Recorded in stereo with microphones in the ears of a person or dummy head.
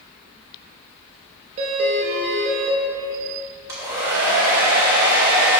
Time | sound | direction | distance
1.6 | a doorbell | 40° right (ahead or behind) | 1.3 m
3.7 | a hair dryer | 15° right (ahead or behind) | 2 m